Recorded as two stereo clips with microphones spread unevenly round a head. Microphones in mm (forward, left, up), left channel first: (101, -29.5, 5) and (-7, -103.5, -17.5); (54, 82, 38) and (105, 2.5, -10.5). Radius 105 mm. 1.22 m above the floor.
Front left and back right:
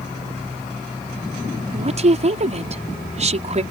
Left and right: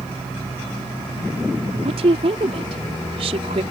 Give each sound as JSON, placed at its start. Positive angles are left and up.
{"t": 1.7, "sound": "a woman speaking", "azimuth_deg": -110}